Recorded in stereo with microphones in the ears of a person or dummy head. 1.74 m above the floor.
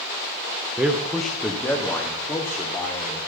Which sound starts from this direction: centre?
A man speaking, at 0.8 s.